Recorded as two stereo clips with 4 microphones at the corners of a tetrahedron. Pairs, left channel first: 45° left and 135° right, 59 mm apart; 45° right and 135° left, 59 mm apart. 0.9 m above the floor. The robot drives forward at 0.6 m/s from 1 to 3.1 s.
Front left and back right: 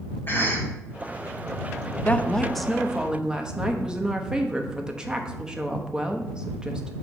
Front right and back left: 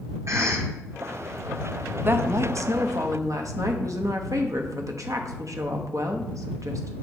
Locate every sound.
0.3 s a cough: 100° left, 2 m
2.0 s a woman speaking: 100° left, 0.6 m; by 6.9 s 150° left, 0.9 m